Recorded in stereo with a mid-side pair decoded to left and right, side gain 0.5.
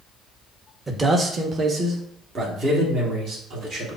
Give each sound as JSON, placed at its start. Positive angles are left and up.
{"t": 0.9, "sound": "a man speaking", "azimuth_deg": -25, "distance_m": 1.0}